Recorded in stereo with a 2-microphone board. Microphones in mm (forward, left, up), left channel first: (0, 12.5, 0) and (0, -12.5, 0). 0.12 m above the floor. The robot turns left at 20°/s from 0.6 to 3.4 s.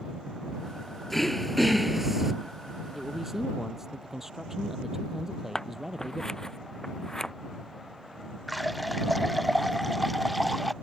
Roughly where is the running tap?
Centre.